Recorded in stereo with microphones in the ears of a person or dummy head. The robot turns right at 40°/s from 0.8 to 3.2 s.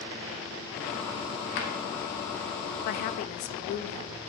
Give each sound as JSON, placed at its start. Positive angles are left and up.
{"t": 1.6, "sound": "a drawer", "side_deg": 60, "distance_m": 2.0}
{"t": 2.9, "sound": "a woman speaking", "side_deg": 55, "distance_m": 0.8}